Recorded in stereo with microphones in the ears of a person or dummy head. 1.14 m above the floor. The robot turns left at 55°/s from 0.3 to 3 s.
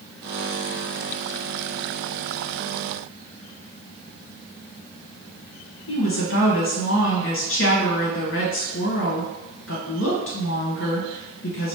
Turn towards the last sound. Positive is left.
turn(degrees=65)  # may be behind; listen again after turning